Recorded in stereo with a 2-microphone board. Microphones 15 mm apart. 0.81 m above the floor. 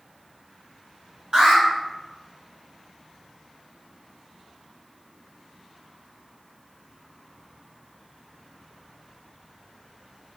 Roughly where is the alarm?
Right.